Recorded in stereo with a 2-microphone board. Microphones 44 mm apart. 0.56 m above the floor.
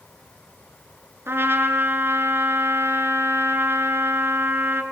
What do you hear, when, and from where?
1.3 s a trumpet: 65° right (ahead or behind), 3.5 m